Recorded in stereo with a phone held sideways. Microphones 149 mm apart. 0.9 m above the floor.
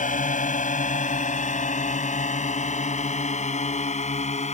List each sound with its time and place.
0.0 s a drone: 55° left (ahead or behind); by 4.5 s 45° left (ahead or behind)